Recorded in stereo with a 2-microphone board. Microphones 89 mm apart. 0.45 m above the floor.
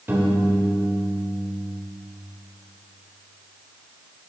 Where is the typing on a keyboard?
No typing on a keyboard in this recording.